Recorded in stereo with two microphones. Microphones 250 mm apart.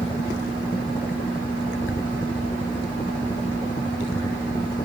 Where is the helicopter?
20° left (ahead or behind); by 4.8 s 15° left (ahead or behind).